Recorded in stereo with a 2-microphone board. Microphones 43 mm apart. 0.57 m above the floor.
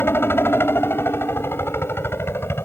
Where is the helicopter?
60° left (ahead or behind).